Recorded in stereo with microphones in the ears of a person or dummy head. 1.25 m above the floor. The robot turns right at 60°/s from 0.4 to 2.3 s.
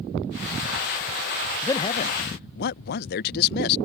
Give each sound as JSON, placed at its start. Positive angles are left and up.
{"t": 1.6, "sound": "a man speaking", "azimuth_deg": 10}